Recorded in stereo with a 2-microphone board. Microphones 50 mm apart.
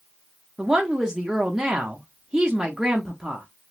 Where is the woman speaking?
15° right (ahead or behind), 0.6 m.